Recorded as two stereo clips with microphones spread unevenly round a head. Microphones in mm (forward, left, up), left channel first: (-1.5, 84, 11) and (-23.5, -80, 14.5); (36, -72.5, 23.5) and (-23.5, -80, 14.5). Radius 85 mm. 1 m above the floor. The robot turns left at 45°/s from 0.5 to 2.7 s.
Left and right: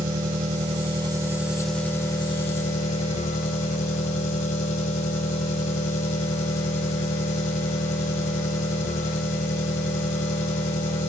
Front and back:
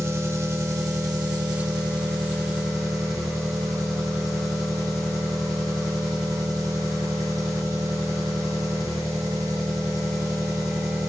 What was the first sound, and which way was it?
An engine running, 135° right.